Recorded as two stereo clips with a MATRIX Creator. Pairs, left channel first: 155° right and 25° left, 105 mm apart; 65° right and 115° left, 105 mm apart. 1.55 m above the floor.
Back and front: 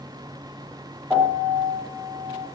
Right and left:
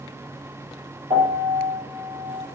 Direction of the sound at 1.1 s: 100° left.